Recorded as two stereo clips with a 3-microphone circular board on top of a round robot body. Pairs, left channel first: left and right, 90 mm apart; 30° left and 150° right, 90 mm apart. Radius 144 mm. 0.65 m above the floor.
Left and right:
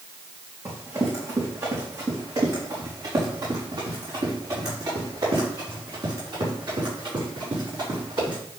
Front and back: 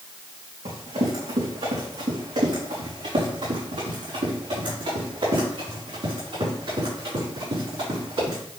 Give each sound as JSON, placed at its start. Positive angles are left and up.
{"t": 0.7, "sound": "running footsteps", "azimuth_deg": -140, "distance_m": 3.5}